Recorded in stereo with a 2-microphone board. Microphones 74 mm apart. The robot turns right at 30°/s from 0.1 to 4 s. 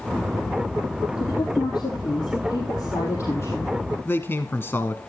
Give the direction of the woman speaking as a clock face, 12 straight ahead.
10 o'clock.